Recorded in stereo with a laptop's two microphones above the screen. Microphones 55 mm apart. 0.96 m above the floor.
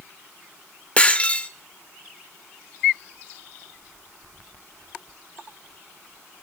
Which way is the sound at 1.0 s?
25° left (ahead or behind).